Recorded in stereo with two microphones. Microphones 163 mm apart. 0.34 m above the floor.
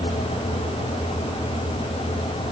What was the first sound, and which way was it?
Only background noise.